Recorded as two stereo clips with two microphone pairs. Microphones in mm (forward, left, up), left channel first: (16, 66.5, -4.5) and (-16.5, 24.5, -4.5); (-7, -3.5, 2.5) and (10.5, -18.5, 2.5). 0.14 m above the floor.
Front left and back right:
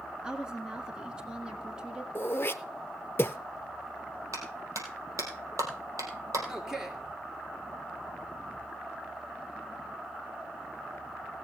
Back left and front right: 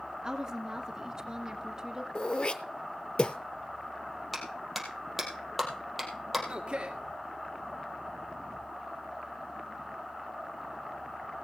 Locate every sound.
0.2 s a woman speaking: 60° right, 1.5 m
2.1 s throat clearing: 100° left, 0.8 m
4.3 s a clap: 125° right, 3.5 m
6.5 s a man speaking: 45° right, 1.9 m